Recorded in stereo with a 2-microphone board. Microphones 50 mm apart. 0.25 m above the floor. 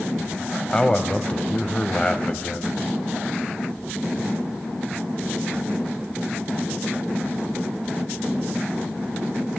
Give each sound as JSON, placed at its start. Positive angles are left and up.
{"t": 0.7, "sound": "a man speaking", "side_deg": 25, "distance_m": 1.4}